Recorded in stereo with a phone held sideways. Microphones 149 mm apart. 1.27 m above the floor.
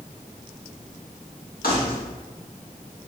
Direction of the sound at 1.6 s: 85° left.